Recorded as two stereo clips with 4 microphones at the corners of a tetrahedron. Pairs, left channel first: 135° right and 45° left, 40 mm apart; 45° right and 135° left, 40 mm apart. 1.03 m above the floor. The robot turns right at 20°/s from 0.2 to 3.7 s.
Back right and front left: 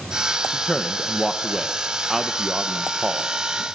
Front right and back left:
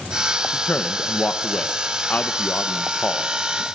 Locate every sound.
0.5 s a man speaking: 65° right, 1.0 m; by 3.6 s 5° right, 1.0 m